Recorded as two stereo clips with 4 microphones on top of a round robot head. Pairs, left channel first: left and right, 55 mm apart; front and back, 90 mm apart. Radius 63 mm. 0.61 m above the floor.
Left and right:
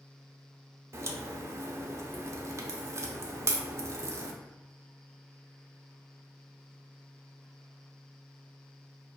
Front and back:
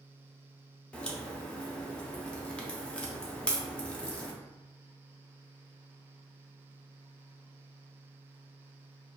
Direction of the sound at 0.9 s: 75° right.